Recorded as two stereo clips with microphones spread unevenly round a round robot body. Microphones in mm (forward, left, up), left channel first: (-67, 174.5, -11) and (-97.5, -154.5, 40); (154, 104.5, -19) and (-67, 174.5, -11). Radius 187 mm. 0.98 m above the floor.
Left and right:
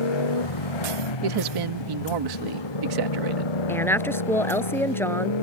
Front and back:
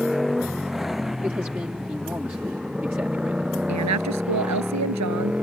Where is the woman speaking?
170° left.